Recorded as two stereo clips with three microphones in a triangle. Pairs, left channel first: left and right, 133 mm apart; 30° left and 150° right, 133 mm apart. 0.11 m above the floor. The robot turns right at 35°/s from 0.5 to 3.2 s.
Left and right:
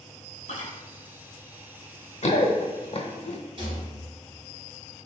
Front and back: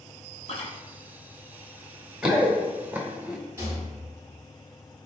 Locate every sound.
0.5 s chewing: 65° left, 0.5 m; by 0.7 s 70° left, 0.5 m
2.2 s running footsteps: 125° left, 1.1 m
3.6 s a rattle: 90° right, 1.8 m